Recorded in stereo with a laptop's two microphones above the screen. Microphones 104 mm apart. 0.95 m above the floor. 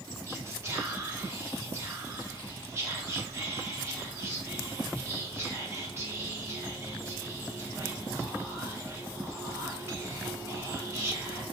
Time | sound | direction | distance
0.3 | whispering | 30° right (ahead or behind) | 0.7 m